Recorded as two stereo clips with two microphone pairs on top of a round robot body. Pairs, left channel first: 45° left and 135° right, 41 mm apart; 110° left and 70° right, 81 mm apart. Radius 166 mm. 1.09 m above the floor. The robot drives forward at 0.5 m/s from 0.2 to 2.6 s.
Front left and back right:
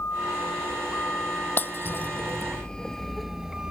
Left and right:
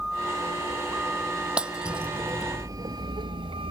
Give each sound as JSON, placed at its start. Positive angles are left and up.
{"t": 0.0, "sound": "a vehicle", "azimuth_deg": 15}
{"t": 1.6, "sound": "breaking glass", "azimuth_deg": 10}